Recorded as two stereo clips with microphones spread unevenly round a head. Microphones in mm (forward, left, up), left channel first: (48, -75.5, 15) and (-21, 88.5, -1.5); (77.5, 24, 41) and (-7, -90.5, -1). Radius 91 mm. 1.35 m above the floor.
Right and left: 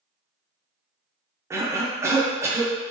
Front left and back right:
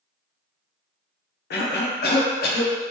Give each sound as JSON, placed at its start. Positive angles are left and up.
{"t": 1.5, "sound": "a cough", "azimuth_deg": 40, "distance_m": 0.6}